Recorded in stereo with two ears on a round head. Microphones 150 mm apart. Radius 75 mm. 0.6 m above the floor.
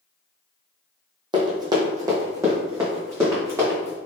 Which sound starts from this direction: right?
Running footsteps, at 1.3 s.